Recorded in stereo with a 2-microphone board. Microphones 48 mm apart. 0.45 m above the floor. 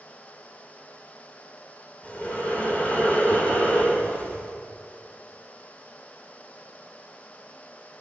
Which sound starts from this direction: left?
Breathing, at 2.0 s.